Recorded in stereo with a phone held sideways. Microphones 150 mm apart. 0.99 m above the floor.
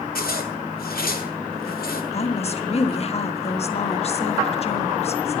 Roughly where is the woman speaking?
Left.